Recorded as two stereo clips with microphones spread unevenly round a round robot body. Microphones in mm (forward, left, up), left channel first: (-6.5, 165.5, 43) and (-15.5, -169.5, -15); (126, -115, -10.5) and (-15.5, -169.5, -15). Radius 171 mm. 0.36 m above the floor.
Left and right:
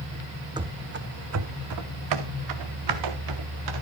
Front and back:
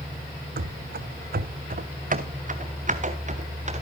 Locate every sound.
0.6 s running footsteps: 175° right, 0.7 m; by 3.8 s 115° right, 2.5 m